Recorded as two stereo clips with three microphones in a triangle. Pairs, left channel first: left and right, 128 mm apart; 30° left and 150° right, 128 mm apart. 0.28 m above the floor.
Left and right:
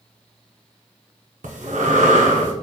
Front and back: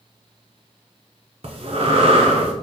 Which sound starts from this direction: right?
Breathing, at 1.4 s.